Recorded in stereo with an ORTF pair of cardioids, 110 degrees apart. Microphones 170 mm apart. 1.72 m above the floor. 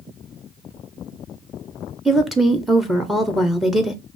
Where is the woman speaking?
Straight ahead, 0.9 m.